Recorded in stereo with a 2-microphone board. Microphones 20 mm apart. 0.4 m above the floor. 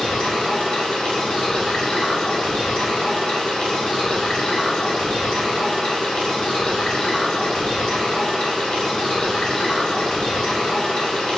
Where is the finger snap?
I don't hear a finger snap.